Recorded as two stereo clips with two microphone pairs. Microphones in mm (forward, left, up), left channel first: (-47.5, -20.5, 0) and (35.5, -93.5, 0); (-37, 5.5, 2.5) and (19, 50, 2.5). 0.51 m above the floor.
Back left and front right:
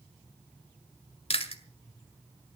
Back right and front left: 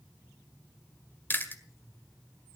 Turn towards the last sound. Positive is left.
turn(degrees=160)